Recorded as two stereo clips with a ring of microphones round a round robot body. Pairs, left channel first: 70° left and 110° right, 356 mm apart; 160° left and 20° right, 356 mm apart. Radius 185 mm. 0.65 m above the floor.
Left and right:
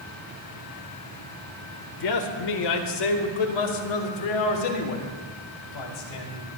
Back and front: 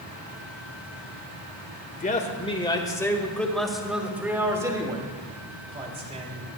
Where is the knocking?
I don't hear knocking.